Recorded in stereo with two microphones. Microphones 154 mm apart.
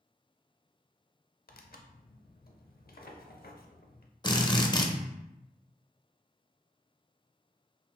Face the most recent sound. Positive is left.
turn(degrees=30)  # may be behind; listen again after turning